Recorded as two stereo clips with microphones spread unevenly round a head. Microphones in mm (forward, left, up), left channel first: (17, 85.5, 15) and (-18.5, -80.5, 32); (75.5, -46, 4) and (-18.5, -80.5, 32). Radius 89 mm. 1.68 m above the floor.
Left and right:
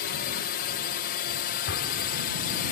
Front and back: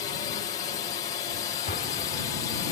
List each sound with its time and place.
0.0 s a drone: 60° left
1.7 s an explosion: 55° left